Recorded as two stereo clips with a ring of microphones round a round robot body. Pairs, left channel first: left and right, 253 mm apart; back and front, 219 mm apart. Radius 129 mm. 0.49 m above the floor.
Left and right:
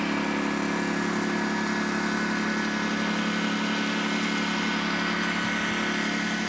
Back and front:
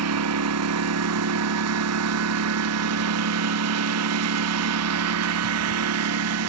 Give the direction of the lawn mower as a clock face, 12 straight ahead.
12 o'clock.